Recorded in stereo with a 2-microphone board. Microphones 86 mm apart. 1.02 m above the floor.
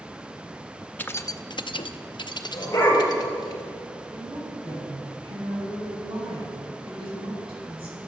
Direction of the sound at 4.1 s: 80° right.